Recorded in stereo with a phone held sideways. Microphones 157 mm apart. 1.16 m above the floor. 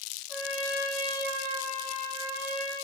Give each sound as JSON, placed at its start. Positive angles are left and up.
{"t": 0.3, "sound": "a trumpet", "side_deg": -15, "distance_m": 3.5}